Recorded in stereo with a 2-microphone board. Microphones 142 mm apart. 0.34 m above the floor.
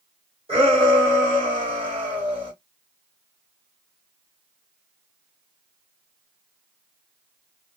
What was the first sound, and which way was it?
A shout, 40° right (ahead or behind).